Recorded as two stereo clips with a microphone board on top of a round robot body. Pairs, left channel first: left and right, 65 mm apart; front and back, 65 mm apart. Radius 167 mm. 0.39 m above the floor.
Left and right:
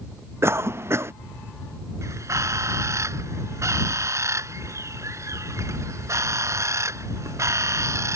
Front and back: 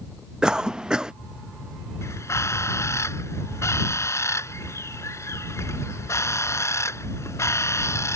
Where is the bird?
45° right.